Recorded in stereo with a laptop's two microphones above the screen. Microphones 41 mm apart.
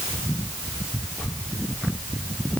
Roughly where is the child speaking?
I don't hear a child speaking.